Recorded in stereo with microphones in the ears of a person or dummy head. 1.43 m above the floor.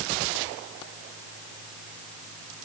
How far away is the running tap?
I don't hear a running tap.